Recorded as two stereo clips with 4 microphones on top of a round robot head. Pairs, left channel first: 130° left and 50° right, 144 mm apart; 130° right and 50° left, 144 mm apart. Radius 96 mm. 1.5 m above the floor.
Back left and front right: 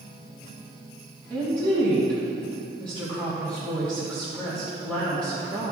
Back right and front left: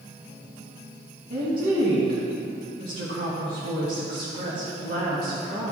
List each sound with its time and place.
1.3 s a woman speaking: 50° left, 2.5 m